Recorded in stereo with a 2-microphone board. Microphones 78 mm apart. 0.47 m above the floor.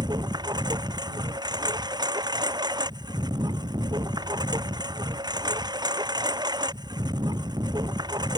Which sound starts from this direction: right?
A lawn mower, at 0.0 s.